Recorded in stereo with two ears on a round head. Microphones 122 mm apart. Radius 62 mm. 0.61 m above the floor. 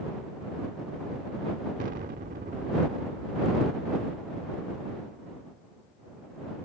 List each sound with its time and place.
1.8 s an explosion: 65° right (ahead or behind)